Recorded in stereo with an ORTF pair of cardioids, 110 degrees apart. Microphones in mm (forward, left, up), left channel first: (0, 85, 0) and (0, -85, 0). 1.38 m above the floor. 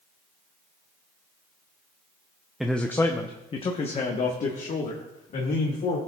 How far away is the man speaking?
About 0.6 m.